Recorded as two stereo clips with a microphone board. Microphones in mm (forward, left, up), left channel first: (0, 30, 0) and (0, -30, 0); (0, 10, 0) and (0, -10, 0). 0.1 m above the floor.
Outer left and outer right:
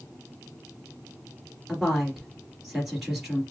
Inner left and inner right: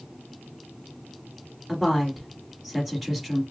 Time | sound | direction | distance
1.7 | a woman speaking | 5° right (ahead or behind) | 2 m